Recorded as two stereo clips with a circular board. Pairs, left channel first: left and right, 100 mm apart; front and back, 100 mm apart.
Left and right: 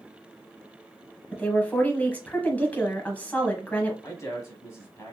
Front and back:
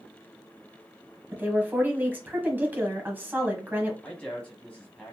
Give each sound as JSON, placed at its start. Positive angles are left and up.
{"t": 1.3, "sound": "a woman speaking", "azimuth_deg": 140, "distance_m": 1.2}
{"t": 4.0, "sound": "a man speaking", "azimuth_deg": 70, "distance_m": 1.1}